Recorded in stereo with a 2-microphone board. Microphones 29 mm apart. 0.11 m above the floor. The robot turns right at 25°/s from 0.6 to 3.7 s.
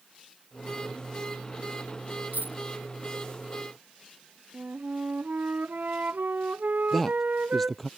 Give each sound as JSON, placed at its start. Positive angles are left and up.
{"t": 2.3, "sound": "a dropped coin", "side_deg": -75}
{"t": 4.5, "sound": "a flute", "side_deg": -70}
{"t": 6.9, "sound": "a man speaking", "side_deg": 5}